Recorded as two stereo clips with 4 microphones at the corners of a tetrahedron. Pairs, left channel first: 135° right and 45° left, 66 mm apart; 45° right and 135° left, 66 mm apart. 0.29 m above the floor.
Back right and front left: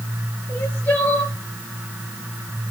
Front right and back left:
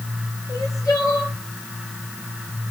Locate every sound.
0.5 s crying: 70° right, 4.5 m